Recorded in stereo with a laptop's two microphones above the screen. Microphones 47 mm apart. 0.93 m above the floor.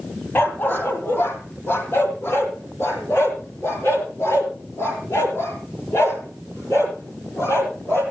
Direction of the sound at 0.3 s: 40° left (ahead or behind).